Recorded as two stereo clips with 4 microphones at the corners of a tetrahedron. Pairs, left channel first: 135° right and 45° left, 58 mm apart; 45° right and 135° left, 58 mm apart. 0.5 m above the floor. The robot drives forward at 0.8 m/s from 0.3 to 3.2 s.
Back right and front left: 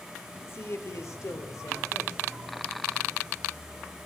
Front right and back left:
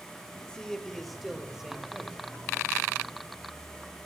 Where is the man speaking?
115° right, 1.5 m; by 2.2 s 150° right, 2.5 m.